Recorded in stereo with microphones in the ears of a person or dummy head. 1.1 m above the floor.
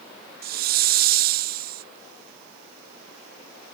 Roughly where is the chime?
No chime in this recording.